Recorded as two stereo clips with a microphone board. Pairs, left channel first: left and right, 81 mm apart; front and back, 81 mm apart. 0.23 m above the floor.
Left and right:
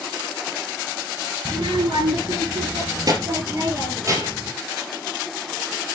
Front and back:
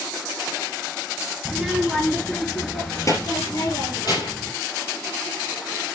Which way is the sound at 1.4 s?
100° right.